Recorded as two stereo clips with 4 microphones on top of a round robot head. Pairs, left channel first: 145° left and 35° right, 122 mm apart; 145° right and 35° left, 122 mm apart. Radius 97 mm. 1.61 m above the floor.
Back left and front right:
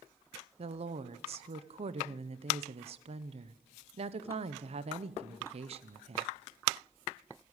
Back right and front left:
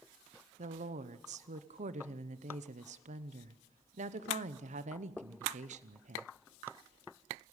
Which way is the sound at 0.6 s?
5° left.